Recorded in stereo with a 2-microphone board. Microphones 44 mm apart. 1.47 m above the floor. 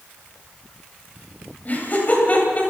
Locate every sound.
1.6 s laughter: 40° left (ahead or behind), 9 m